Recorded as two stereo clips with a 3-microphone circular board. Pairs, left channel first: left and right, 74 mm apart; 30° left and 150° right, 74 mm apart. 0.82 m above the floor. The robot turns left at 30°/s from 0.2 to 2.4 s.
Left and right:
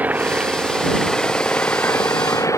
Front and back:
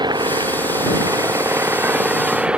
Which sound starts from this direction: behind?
An engine running, at 0.0 s.